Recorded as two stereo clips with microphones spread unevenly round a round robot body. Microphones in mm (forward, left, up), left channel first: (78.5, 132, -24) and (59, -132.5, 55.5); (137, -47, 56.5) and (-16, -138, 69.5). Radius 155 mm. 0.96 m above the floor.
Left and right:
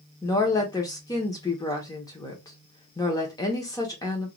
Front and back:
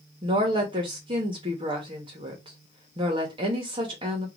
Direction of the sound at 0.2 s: 150° left.